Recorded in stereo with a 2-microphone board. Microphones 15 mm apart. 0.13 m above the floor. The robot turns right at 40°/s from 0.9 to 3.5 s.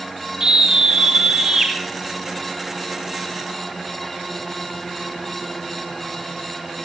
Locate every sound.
0.4 s a scream: 105° right, 2 m; by 1.7 s 70° right, 2 m